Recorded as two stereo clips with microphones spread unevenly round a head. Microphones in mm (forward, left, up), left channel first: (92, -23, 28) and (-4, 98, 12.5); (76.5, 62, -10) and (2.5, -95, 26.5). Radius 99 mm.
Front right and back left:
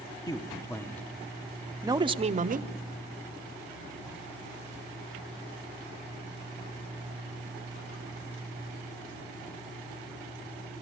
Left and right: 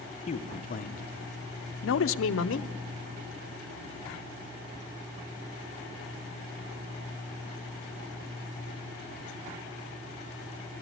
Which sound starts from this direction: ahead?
A man speaking, at 0.3 s.